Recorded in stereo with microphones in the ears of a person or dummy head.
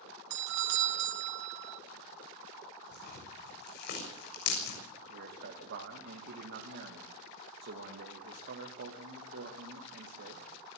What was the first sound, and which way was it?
A doorbell, 65° right (ahead or behind).